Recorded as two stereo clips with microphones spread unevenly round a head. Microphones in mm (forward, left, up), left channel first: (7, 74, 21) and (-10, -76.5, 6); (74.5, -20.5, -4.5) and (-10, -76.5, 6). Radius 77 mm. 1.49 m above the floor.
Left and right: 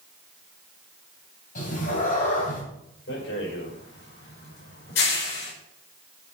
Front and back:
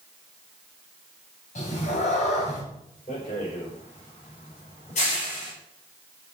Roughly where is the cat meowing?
Ahead left.